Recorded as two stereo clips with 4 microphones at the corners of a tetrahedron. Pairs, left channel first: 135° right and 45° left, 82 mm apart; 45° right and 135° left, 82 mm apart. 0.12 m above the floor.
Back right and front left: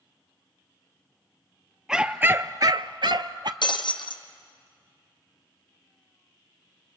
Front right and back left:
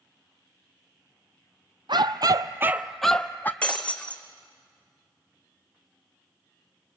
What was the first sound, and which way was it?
A dog barking, 125° left.